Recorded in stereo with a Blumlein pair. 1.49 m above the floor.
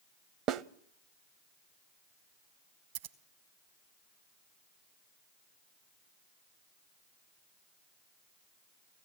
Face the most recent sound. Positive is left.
turn(degrees=-50)